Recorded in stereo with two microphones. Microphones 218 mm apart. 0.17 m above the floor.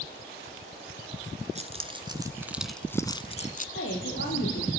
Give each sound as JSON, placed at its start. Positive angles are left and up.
{"t": 1.6, "sound": "keys jangling", "side_deg": -30, "distance_m": 1.5}
{"t": 3.8, "sound": "a woman speaking", "side_deg": 65, "distance_m": 7.5}